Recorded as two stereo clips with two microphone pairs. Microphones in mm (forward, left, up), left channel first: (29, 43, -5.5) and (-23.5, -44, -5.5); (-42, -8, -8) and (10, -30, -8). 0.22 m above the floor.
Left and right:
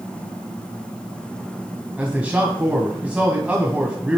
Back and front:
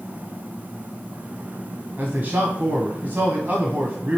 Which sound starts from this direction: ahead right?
A man speaking, at 2.0 s.